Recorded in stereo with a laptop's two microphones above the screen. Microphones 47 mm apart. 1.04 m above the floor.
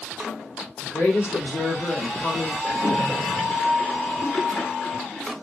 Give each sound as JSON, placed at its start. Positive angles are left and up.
{"t": 0.8, "sound": "a woman speaking", "side_deg": 60, "distance_m": 3.0}
{"t": 2.6, "sound": "a splash", "side_deg": 20, "distance_m": 2.0}